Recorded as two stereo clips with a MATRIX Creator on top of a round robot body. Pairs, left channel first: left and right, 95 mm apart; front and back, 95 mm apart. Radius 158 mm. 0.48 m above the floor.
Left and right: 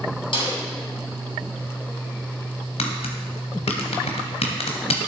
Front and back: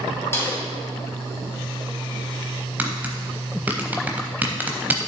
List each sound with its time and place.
0.3 s a snare drum: 65° left, 3.5 m
2.8 s tapping: 105° left, 0.9 m